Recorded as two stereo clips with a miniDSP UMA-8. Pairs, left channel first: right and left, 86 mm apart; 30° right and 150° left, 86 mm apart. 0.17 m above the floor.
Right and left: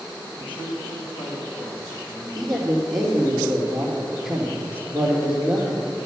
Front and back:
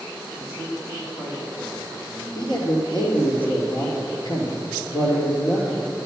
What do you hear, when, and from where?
0.4 s a man speaking: 80° right, 5 m; by 2.2 s 90° right, 7 m
2.4 s a man speaking: straight ahead, 3.5 m